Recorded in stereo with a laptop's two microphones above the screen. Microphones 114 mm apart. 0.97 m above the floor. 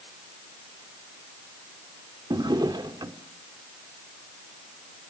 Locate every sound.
2.3 s a drawer: 40° right (ahead or behind), 1.3 m